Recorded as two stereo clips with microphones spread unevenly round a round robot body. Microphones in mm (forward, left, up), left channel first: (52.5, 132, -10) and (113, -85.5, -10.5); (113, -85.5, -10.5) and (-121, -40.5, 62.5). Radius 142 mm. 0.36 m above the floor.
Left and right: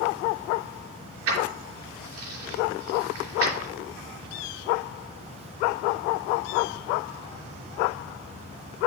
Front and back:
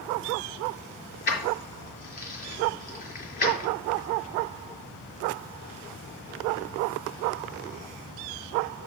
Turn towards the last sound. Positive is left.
turn(degrees=-60)